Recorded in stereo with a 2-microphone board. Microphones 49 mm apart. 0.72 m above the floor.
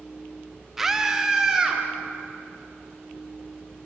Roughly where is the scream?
Centre.